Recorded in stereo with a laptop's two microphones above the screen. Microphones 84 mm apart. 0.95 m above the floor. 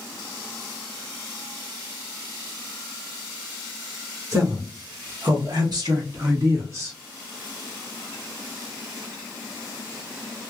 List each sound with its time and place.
4.3 s a man speaking: 45° right (ahead or behind), 1.3 m; by 7.0 s 35° right (ahead or behind), 1.5 m